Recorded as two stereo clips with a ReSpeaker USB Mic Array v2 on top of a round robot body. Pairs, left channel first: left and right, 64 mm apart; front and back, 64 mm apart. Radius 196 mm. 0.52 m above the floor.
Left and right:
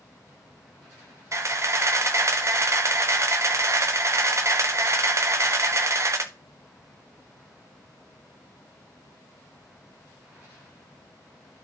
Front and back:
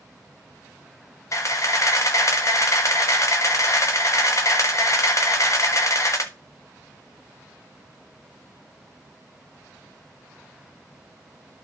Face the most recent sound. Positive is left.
turn(degrees=-45)